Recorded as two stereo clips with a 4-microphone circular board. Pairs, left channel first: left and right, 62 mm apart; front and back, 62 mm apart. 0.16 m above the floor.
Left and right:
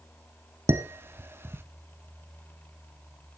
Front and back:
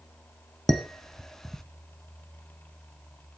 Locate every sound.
0.7 s dishes clattering: 80° right, 0.9 m